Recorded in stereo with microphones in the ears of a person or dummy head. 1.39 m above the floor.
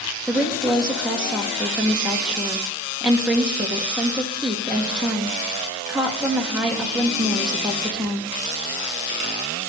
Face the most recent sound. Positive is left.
turn(degrees=0)  # may be behind; listen again after turning